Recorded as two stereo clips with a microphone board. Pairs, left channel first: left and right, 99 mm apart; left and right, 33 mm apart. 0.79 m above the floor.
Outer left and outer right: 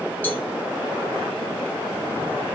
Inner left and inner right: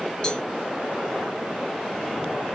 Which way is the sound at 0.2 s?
20° left (ahead or behind).